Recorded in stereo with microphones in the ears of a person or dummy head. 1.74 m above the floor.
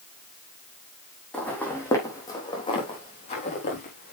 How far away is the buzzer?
I don't hear a buzzer.